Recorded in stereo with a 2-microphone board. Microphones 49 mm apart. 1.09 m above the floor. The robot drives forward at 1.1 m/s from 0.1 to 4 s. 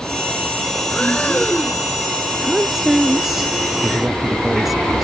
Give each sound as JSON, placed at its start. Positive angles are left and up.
{"t": 0.9, "sound": "breathing", "side_deg": 20}
{"t": 2.4, "sound": "a woman speaking", "side_deg": -5}